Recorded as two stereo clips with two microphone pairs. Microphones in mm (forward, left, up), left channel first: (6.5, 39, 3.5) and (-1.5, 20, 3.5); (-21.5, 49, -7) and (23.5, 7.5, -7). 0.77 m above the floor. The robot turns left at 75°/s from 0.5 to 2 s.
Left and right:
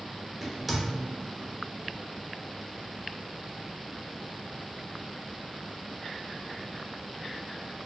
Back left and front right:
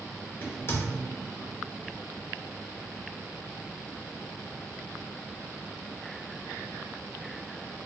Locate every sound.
0.4 s a crack: 165° left, 1.0 m; by 0.8 s 140° left, 1.0 m